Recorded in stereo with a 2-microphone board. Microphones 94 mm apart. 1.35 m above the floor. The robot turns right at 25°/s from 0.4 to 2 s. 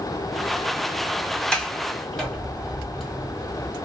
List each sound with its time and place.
1.5 s a sliding door: 10° left (ahead or behind), 1.3 m; by 3.8 s 5° left (ahead or behind), 1.3 m